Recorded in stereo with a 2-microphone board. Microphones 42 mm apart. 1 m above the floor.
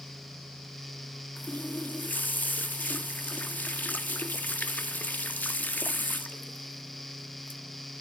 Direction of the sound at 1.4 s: 40° left (ahead or behind).